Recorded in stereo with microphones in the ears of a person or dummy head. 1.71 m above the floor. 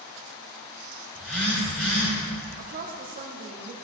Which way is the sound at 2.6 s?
45° right (ahead or behind).